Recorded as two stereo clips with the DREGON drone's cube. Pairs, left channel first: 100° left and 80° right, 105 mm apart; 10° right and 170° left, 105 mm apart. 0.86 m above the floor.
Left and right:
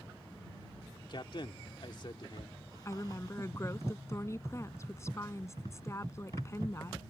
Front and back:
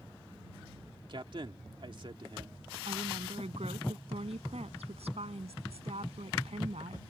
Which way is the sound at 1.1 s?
135° left.